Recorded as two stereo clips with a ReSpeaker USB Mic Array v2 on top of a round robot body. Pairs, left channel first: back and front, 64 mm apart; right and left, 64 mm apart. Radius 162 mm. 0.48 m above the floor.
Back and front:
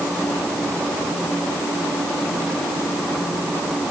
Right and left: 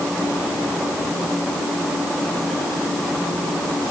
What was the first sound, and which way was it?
Only background noise.